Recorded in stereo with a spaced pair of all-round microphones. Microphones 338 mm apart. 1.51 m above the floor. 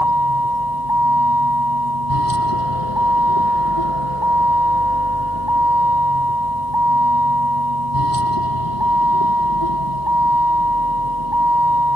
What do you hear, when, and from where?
0.0 s a vehicle: 80° left